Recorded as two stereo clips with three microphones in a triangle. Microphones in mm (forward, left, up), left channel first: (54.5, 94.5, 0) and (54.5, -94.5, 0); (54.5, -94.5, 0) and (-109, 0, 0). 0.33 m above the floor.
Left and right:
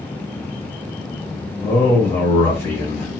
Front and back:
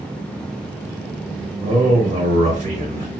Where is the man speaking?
155° left, 1.0 m.